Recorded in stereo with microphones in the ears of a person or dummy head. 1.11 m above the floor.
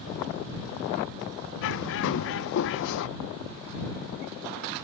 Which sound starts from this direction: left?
A bird, at 1.6 s.